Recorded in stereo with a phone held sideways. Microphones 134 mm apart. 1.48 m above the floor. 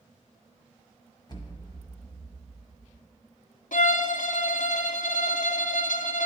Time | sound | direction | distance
1.3 | an explosion | 30° left (ahead or behind) | 1.0 m
3.7 | a violin | 75° left (ahead or behind) | 0.5 m